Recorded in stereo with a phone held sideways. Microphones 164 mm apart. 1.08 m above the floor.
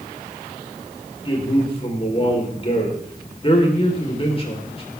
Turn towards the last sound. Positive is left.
turn(degrees=35)  # may be behind; listen again after turning